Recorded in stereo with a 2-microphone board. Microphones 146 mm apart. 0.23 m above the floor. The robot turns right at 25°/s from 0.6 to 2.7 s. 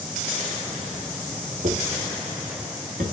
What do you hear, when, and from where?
1.6 s footsteps: 55° right (ahead or behind), 0.6 m; by 3.0 s 70° right (ahead or behind), 1.9 m